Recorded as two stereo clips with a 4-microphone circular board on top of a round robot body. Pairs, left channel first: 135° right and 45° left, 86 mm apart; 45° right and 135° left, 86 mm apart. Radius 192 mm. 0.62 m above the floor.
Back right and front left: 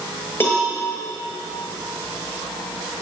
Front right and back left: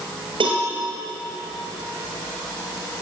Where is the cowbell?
165° left, 6 m.